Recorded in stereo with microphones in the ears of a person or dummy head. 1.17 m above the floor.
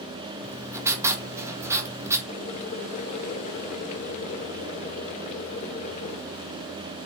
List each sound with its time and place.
0.4 s writing: 15° right (ahead or behind), 1.8 m
2.3 s boiling: 35° left (ahead or behind), 1.9 m